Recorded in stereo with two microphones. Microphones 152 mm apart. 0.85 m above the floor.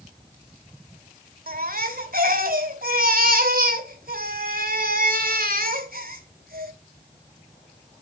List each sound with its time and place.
1.5 s a baby crying: 75° right (ahead or behind), 1.8 m